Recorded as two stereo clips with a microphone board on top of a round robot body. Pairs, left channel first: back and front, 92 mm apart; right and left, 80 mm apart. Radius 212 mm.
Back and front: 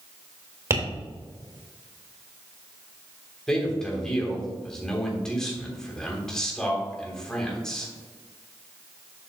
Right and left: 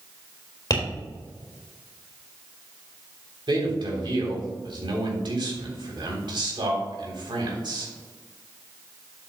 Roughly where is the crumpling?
I don't hear crumpling.